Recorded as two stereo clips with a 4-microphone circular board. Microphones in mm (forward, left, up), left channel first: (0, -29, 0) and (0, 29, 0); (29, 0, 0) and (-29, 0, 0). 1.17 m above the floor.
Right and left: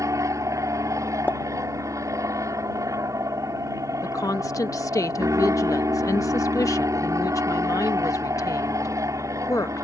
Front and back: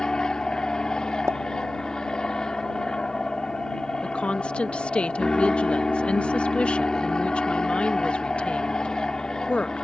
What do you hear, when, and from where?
0.0 s an aircraft: 75° left
1.3 s a pop: 145° right
4.0 s a woman speaking: 70° right